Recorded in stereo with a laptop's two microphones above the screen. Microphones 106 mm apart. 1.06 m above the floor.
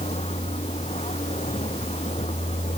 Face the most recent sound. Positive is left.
turn(degrees=85)